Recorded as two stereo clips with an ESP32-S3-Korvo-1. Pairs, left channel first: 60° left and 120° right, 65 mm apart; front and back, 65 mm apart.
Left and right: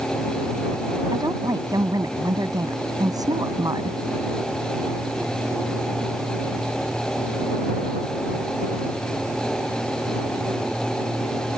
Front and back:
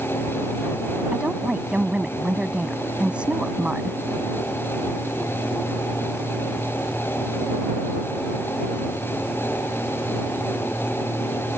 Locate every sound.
1.1 s a woman speaking: 105° right